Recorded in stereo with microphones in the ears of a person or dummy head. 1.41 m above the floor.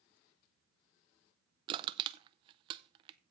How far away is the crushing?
About 0.6 m.